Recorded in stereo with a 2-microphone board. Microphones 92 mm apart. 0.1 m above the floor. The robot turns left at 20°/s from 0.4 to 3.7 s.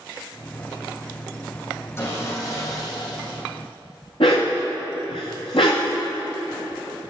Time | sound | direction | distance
2.0 | sawing | 30° left (ahead or behind) | 5 m
4.2 | a dog barking | 75° left (ahead or behind) | 3.5 m